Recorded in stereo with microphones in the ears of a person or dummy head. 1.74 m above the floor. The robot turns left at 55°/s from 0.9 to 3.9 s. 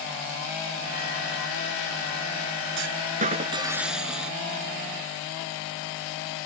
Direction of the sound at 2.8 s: 110° right.